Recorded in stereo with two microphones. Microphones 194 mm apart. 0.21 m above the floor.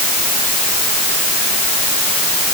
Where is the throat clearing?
I don't hear throat clearing.